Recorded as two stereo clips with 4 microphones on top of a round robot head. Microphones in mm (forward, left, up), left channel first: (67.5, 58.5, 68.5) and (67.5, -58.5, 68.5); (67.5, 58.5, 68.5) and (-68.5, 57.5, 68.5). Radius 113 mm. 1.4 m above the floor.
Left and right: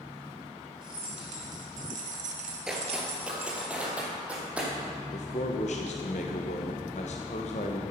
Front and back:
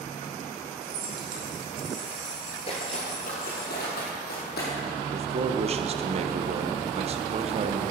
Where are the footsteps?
10° right, 1.5 m.